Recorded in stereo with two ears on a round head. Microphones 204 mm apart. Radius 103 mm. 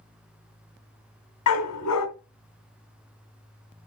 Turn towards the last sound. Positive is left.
turn(degrees=85)